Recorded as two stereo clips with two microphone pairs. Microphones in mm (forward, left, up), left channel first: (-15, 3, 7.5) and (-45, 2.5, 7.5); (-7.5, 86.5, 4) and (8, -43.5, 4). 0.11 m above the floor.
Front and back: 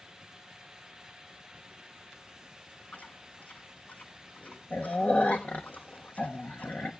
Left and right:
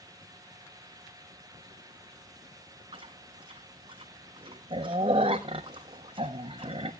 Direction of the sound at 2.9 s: 35° right.